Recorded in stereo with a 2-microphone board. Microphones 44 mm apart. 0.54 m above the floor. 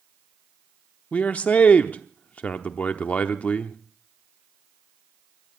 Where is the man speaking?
35° left (ahead or behind), 0.8 m.